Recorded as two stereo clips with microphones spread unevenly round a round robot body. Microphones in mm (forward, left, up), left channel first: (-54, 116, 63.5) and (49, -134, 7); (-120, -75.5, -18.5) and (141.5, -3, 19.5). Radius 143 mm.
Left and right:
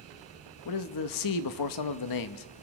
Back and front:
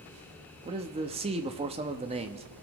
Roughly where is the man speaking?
Left.